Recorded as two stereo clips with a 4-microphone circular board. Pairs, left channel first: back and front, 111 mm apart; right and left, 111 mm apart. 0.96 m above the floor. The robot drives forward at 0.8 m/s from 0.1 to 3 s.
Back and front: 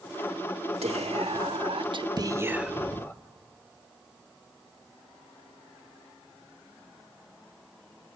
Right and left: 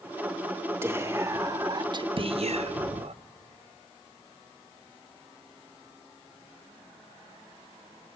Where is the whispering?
20° left, 1.6 m; by 3.1 s 110° left, 0.6 m.